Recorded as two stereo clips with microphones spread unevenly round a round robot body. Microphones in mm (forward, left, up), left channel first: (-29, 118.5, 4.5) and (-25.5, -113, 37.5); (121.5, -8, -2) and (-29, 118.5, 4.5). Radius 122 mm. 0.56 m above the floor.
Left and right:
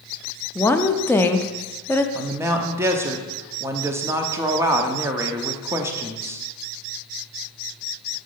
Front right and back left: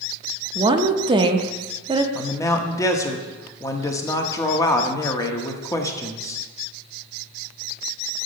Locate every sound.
0.6 s a woman speaking: 125° left, 0.6 m
2.1 s a man speaking: 5° right, 0.8 m